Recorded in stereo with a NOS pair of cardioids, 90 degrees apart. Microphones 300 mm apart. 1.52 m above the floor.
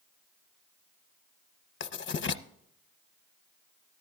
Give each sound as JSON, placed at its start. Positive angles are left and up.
{"t": 1.8, "sound": "writing", "azimuth_deg": 40, "distance_m": 0.7}